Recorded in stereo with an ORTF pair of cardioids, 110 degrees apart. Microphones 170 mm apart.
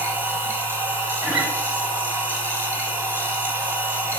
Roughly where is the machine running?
Ahead.